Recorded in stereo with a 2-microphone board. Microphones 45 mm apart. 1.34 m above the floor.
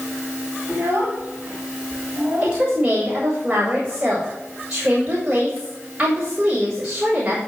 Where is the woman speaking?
25° right (ahead or behind), 6 m.